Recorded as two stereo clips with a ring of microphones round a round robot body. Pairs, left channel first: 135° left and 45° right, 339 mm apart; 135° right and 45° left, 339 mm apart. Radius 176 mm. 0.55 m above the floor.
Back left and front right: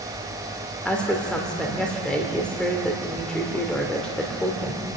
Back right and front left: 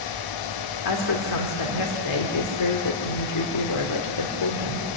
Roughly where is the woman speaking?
Behind right.